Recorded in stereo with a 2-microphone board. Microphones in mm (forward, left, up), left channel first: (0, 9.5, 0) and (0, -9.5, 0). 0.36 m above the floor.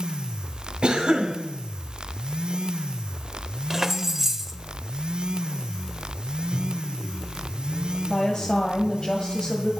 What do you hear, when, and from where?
0.8 s a cough: 60° right (ahead or behind), 2 m
3.7 s keys jangling: 20° right (ahead or behind), 0.8 m
6.5 s a microwave: 70° left (ahead or behind), 4 m
8.1 s a woman speaking: 45° left (ahead or behind), 1.7 m